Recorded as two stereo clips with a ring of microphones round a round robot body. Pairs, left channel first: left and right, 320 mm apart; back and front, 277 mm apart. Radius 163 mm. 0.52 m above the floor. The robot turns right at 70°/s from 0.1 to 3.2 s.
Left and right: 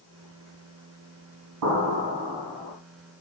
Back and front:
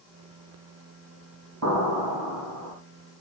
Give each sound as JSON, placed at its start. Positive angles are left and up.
{"t": 1.6, "sound": "an explosion", "azimuth_deg": -55, "distance_m": 4.0}